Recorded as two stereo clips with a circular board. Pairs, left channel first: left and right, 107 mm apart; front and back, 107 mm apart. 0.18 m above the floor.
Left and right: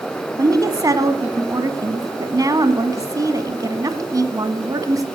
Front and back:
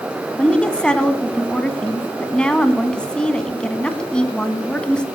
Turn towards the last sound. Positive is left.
turn(degrees=-75)